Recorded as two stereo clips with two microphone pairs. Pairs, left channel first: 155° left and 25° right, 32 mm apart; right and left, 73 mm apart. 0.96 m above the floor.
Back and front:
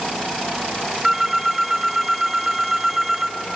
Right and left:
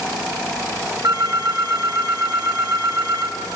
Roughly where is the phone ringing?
Ahead left.